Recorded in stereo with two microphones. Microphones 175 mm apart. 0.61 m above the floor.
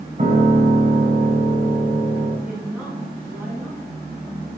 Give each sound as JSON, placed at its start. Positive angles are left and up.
{"t": 0.2, "sound": "a piano", "side_deg": -45, "distance_m": 3.0}
{"t": 2.5, "sound": "a woman speaking", "side_deg": -5, "distance_m": 5.5}